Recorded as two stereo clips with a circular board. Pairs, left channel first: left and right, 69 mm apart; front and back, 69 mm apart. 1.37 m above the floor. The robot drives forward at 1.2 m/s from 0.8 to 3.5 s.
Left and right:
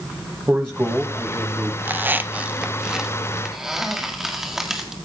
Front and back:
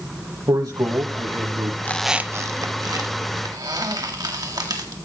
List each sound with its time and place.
0.5 s a man speaking: 145° right, 1.9 m; by 1.7 s 160° right, 3 m
1.8 s a squeak: 35° right, 0.5 m; by 5.0 s 175° right, 1.8 m